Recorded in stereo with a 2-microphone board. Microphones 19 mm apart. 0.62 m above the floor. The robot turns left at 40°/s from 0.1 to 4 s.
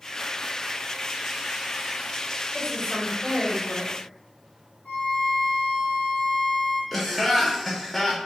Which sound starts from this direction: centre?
Laughter, at 6.9 s.